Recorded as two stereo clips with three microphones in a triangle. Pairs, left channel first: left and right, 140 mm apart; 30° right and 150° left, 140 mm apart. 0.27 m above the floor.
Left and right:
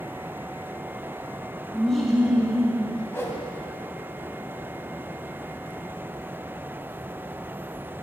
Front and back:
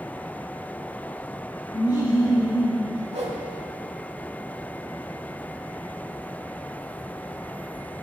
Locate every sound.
1.7 s laughter: 10° left, 1.6 m; by 3.0 s 60° right, 1.6 m
3.1 s a whoosh: 160° left, 0.7 m